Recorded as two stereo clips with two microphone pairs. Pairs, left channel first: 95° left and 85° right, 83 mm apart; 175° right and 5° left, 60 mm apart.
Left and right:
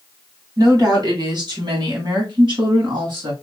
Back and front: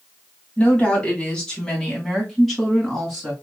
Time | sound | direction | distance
0.6 | a woman speaking | 110° right | 2.5 m